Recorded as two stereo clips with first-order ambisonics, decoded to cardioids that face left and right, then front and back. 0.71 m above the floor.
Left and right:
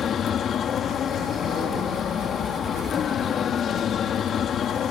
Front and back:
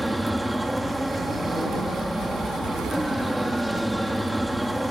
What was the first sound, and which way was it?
An aircraft, 100° left.